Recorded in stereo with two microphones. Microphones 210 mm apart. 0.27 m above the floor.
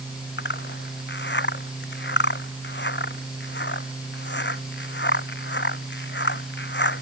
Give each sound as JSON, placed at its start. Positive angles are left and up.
{"t": 0.4, "sound": "a zipper", "side_deg": 60}